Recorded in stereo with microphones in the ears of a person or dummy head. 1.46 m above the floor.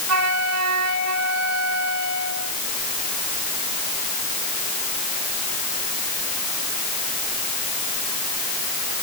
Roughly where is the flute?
Right.